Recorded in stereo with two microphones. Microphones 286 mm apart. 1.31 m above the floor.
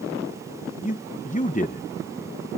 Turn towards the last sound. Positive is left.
turn(degrees=25)  # may be behind; listen again after turning